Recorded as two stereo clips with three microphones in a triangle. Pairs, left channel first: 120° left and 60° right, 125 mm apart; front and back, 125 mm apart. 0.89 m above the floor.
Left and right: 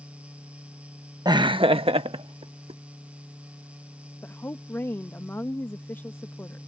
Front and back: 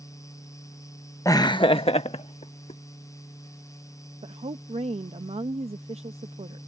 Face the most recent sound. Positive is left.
turn(degrees=-170)